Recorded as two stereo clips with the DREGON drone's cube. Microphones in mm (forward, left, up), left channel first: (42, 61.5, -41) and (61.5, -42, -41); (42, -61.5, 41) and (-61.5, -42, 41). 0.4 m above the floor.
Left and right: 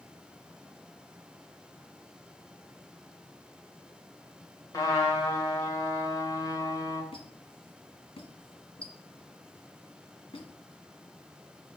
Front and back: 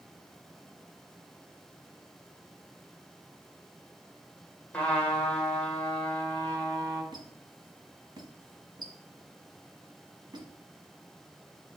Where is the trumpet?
60° left, 1.5 m.